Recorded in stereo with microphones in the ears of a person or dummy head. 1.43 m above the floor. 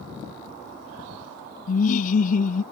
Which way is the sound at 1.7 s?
45° left (ahead or behind).